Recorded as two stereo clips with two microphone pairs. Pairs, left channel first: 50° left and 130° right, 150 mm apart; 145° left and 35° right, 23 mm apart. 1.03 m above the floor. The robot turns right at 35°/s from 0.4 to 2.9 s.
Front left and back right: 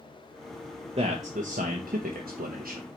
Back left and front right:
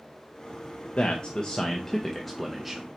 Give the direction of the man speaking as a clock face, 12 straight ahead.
6 o'clock.